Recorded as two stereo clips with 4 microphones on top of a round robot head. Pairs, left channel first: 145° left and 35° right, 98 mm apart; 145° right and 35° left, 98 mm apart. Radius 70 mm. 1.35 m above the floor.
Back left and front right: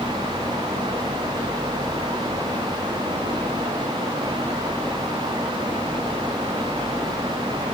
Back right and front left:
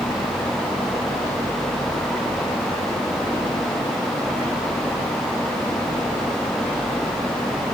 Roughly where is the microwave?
I don't hear a microwave.